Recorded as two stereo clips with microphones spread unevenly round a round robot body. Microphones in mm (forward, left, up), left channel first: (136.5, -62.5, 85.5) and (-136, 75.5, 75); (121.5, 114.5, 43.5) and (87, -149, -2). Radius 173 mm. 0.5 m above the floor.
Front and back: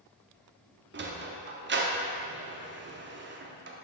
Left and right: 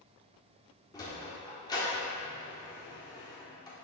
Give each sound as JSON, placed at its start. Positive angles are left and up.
{"t": 0.9, "sound": "a sliding door", "azimuth_deg": 165, "distance_m": 1.0}